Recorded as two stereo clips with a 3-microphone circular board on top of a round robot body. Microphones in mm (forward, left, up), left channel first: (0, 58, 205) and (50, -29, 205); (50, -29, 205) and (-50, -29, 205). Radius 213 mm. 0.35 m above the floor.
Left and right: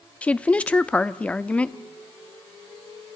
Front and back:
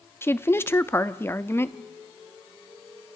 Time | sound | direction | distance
0.2 | a woman speaking | 50° left | 0.9 m